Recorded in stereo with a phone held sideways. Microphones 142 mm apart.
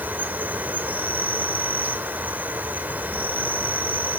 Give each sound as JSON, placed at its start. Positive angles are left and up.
{"t": 0.0, "sound": "an insect", "side_deg": -15, "distance_m": 0.9}